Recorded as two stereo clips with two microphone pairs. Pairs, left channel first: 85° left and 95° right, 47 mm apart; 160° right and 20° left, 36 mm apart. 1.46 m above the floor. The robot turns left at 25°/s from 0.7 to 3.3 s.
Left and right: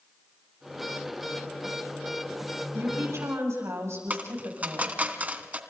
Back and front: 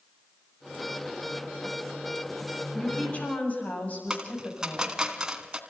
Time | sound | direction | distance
2.7 | a woman speaking | 100° right | 8 m
4.1 | a dropped coin | 45° right | 2 m